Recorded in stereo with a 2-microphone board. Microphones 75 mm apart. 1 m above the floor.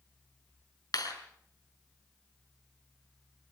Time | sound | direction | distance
0.9 | a clap | 65° left (ahead or behind) | 5.5 m